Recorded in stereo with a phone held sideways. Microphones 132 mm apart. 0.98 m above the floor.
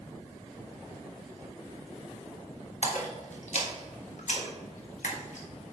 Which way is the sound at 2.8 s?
65° left (ahead or behind).